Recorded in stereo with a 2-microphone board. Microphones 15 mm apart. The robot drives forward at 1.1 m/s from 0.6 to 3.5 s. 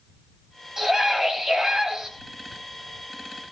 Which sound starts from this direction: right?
A scream, at 0.8 s.